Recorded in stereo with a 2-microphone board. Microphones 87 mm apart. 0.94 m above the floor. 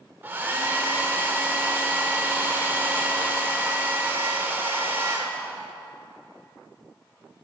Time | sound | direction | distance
0.2 | a hair dryer | 25° right (ahead or behind) | 1.2 m